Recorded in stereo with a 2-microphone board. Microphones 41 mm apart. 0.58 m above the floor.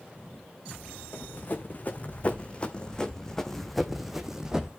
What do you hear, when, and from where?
1.1 s running footsteps: 45° left (ahead or behind), 2.5 m; by 4.7 s 20° right (ahead or behind), 1.8 m